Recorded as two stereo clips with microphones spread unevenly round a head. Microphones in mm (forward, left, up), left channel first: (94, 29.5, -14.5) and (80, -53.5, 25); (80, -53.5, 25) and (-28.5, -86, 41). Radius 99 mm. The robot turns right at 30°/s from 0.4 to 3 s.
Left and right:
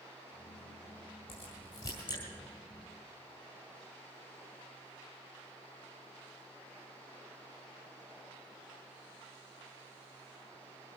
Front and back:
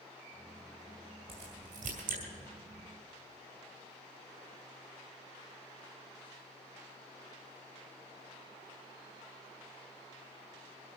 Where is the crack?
140° left, 2 m; by 2.2 s 165° left, 2 m.